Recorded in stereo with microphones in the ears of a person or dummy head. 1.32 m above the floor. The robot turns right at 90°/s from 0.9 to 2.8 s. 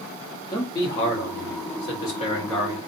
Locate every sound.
0.5 s a man speaking: 30° left, 1.2 m; by 2.8 s 160° right, 1.2 m